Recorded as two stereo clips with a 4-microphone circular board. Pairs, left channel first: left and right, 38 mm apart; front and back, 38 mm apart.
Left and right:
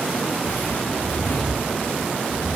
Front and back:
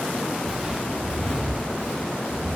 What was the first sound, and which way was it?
Footsteps, 90° left.